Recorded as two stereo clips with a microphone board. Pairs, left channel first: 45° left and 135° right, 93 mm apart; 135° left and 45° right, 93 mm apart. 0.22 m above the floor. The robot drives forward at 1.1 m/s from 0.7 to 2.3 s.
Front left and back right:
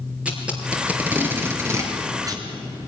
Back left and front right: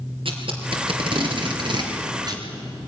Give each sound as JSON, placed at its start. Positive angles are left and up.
{"t": 0.2, "sound": "tape being pulled", "azimuth_deg": -60, "distance_m": 4.0}